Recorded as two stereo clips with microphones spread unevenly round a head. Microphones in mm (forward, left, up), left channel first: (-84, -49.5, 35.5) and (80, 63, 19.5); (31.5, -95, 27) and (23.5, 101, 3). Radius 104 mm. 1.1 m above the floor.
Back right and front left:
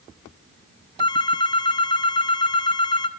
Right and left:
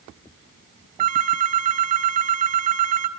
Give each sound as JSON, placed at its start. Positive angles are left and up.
{"t": 1.0, "sound": "a phone ringing", "azimuth_deg": 150, "distance_m": 1.5}